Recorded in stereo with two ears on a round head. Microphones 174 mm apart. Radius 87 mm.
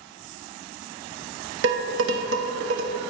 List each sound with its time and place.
1.6 s dishes clattering: 65° right (ahead or behind), 0.7 m